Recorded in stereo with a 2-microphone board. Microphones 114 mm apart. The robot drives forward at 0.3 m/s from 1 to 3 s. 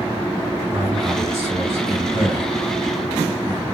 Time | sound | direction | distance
0.7 | a man speaking | 25° right (ahead or behind) | 1.3 m